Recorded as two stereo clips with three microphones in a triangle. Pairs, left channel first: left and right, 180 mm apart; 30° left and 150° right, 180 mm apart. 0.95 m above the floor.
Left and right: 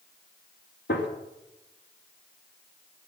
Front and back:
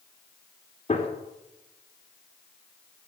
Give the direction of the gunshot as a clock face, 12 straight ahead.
9 o'clock.